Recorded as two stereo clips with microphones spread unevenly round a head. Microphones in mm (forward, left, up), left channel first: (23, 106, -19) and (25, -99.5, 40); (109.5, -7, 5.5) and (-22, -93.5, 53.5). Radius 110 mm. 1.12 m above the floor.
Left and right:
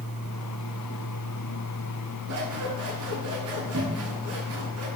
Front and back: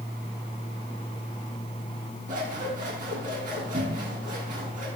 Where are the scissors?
110° right, 8 m.